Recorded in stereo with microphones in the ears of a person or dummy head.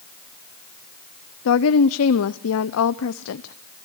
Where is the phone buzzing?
No phone buzzing in this recording.